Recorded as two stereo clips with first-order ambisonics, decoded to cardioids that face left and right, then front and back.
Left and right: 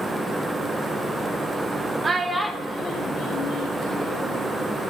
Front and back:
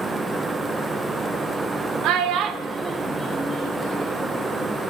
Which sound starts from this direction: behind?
A child speaking, at 2.0 s.